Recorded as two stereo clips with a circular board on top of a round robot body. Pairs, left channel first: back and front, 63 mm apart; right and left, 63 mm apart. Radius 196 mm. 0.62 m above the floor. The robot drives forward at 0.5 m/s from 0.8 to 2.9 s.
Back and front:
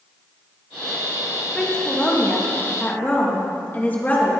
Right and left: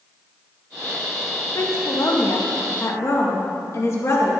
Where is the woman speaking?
100° right, 2 m; by 4.3 s 120° right, 2 m.